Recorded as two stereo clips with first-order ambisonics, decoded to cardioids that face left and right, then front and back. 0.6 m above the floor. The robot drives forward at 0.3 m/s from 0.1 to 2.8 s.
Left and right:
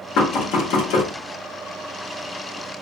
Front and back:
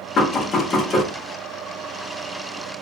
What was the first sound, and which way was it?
Knocking, 55° left.